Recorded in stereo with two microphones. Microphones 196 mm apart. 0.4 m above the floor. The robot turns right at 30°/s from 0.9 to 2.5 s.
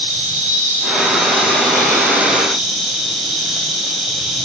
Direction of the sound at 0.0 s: 50° right.